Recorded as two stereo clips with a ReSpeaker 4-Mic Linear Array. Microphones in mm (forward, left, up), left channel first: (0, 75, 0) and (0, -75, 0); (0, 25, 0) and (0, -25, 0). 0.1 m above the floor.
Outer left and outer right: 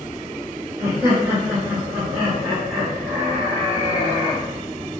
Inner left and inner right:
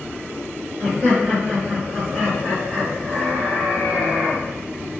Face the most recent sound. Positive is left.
turn(degrees=5)  # may be behind; listen again after turning